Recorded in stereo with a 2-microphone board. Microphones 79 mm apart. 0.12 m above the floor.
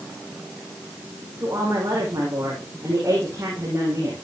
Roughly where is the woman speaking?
Right.